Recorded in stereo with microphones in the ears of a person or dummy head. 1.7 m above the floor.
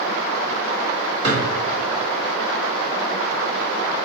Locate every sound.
1.2 s a drawer: 55° right (ahead or behind), 2.0 m